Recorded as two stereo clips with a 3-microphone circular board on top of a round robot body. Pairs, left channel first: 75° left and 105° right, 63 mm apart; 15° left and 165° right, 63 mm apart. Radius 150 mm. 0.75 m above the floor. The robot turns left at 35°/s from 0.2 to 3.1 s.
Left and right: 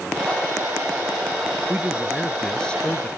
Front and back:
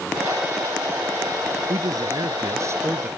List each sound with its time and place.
1.7 s a man speaking: 175° right; by 3.1 s 140° left